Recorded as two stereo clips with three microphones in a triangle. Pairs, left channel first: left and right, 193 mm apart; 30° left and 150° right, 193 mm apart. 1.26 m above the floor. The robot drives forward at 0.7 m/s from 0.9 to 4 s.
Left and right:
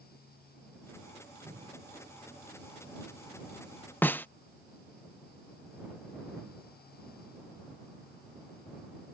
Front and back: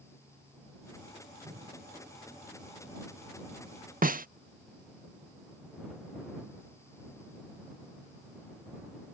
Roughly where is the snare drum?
Behind.